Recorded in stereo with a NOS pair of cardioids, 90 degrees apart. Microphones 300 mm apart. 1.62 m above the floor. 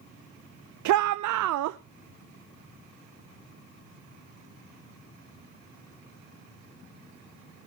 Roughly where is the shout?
Right.